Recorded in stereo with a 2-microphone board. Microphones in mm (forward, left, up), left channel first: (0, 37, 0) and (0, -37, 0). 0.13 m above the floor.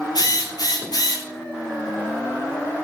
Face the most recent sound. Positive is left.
turn(degrees=60)  # may be behind; listen again after turning